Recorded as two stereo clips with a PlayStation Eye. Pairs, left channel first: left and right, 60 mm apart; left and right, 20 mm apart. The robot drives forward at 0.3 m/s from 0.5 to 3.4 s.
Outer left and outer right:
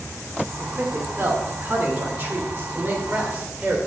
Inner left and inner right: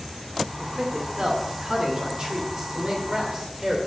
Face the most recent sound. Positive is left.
turn(degrees=-30)  # may be behind; listen again after turning